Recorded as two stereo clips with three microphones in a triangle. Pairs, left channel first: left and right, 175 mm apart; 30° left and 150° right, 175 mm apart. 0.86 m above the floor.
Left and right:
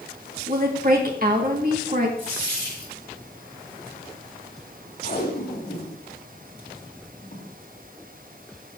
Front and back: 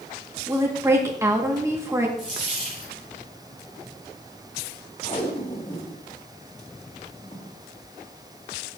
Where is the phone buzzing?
No phone buzzing in this recording.